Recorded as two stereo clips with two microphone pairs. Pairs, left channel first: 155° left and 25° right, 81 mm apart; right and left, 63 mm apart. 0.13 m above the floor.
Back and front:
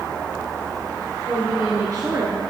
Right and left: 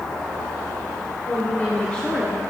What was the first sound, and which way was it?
A woman speaking, 50° right.